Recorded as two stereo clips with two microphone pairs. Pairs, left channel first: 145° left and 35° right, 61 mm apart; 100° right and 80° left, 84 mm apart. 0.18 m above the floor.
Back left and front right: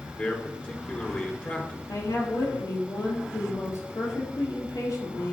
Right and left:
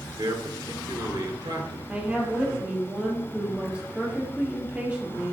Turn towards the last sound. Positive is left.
turn(degrees=155)